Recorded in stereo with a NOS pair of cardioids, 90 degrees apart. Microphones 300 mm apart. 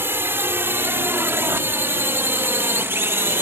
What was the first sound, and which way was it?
A drone, 5° right.